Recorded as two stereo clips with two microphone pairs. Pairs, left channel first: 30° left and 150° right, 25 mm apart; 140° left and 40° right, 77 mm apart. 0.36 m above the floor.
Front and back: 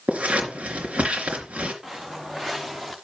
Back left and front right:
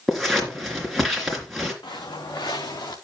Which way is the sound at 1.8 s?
145° left.